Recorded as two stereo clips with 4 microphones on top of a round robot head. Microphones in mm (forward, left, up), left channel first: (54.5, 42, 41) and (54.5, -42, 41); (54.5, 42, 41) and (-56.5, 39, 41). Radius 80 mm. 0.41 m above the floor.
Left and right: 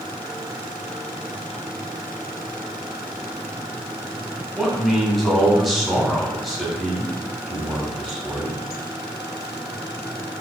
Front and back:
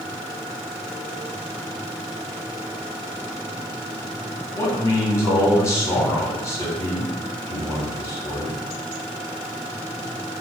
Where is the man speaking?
5° right, 1.3 m.